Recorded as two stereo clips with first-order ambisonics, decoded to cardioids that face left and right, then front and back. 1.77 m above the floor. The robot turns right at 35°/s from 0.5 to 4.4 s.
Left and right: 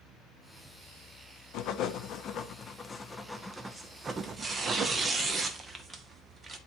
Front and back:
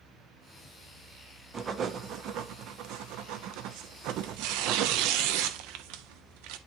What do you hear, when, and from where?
1.5 s writing: 110° left, 0.6 m; by 5.1 s 150° right, 0.6 m
4.1 s tearing paper: 175° right, 0.7 m; by 6.6 s 165° right, 0.7 m